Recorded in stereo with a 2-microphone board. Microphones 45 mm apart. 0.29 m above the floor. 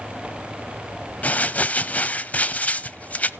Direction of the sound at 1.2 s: 35° left (ahead or behind).